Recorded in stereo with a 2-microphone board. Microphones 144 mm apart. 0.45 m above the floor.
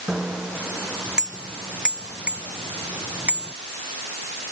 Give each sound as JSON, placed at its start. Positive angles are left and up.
{"t": 0.1, "sound": "a bicycle bell", "side_deg": -5}